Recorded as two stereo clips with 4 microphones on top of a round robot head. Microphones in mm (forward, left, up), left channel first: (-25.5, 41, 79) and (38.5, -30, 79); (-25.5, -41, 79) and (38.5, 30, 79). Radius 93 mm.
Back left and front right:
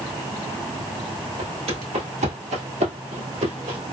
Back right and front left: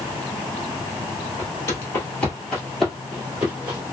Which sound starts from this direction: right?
Footsteps, at 1.4 s.